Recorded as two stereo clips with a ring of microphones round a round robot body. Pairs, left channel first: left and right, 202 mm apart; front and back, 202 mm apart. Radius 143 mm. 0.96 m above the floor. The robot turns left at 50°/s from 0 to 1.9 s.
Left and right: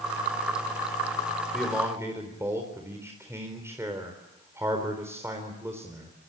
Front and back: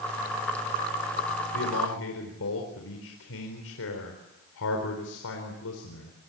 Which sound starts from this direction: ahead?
A man speaking, at 1.5 s.